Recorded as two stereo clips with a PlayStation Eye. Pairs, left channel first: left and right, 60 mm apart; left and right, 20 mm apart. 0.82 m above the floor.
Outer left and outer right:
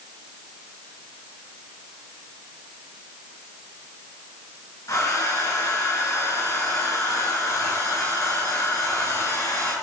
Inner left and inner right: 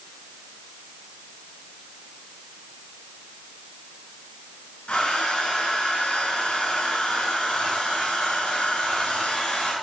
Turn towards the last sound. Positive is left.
turn(degrees=65)  # may be behind; listen again after turning